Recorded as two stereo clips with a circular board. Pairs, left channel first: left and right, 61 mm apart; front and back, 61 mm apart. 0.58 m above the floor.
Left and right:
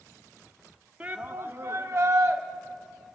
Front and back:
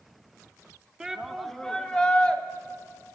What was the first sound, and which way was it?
A shout, 125° right.